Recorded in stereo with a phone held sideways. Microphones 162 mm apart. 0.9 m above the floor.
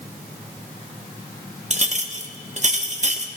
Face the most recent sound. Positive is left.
turn(degrees=-45)  # may be behind; listen again after turning